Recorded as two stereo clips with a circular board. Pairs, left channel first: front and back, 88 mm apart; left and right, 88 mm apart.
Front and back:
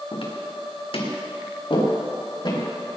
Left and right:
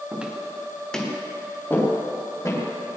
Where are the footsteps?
15° right, 3 m; by 2.6 s 35° left, 5.5 m.